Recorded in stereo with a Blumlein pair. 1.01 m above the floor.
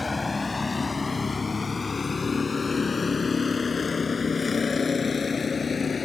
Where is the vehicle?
10° left; by 6.0 s 15° left.